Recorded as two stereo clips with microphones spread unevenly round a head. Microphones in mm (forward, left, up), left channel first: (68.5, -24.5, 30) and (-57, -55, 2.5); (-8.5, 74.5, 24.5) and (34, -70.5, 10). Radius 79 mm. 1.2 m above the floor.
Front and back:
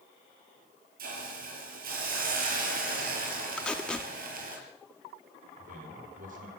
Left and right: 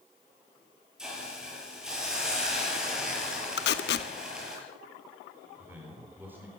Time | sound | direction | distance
1.0 | a hiss | 160° right | 6 m
3.6 | tape being pulled | 95° left | 1.3 m
5.6 | a man speaking | 150° right | 4 m